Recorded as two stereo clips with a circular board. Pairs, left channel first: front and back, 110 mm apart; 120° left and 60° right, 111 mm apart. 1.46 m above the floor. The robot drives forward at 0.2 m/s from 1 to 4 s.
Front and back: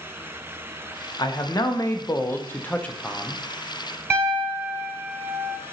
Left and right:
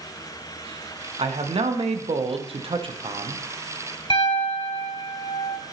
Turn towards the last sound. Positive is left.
turn(degrees=120)